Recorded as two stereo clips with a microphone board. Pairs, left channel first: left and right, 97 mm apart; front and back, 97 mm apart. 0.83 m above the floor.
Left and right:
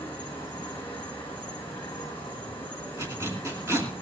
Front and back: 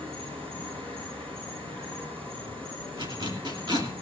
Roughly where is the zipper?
Behind right.